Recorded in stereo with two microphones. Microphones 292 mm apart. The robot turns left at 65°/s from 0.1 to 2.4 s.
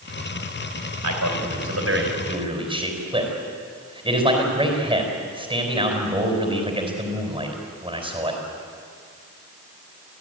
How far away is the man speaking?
About 4.5 m.